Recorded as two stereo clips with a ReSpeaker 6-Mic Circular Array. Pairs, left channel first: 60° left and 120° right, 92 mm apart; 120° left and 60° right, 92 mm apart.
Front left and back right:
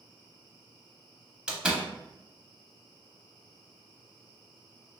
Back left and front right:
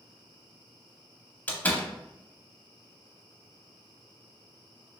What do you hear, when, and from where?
1.5 s a door slam: 170° left, 0.7 m